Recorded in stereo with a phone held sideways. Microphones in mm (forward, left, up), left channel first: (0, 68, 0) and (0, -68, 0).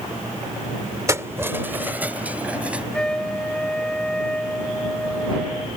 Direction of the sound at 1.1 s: 20° right (ahead or behind).